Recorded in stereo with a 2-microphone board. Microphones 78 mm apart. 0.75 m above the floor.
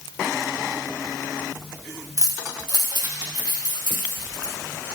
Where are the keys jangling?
45° right (ahead or behind), 0.8 m; by 4.5 s 65° right (ahead or behind), 3 m.